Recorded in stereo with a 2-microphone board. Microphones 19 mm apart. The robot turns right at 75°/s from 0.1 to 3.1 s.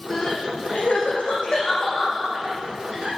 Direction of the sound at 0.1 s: 25° left (ahead or behind).